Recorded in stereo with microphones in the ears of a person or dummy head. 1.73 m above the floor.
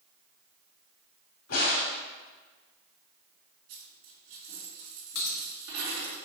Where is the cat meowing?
No cat meowing in this recording.